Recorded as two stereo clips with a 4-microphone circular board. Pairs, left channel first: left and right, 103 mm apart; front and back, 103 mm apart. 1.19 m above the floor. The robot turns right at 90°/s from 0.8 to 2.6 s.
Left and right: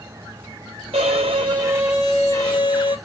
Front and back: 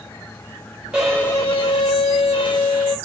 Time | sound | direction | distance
0.9 | a violin | 100° right | 2.5 m